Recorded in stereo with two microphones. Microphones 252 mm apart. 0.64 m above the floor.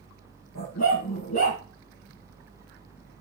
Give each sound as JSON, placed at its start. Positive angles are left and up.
{"t": 0.6, "sound": "a dog barking", "side_deg": 90, "distance_m": 5.0}